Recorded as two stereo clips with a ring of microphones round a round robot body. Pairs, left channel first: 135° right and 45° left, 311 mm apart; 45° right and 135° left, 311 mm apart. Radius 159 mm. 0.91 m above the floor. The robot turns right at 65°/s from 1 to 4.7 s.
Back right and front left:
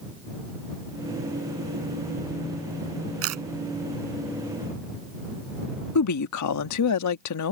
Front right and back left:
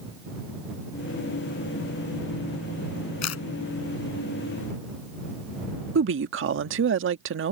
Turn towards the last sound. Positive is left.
turn(degrees=-170)